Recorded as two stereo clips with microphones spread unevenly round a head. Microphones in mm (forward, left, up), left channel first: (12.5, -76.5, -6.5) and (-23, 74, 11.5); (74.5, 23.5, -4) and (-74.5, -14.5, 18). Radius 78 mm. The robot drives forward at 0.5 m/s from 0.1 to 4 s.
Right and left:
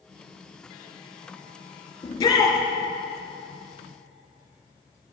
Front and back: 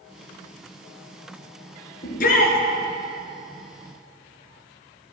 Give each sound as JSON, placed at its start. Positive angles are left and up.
{"t": 2.0, "sound": "a shout", "azimuth_deg": -10, "distance_m": 2.5}